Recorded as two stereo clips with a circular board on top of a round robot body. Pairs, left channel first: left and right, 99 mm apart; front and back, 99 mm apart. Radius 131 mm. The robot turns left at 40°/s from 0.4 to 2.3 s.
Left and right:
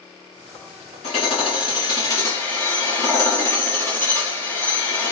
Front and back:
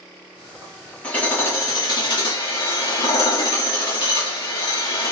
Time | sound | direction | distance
1.0 | hammering | 80° left | 4 m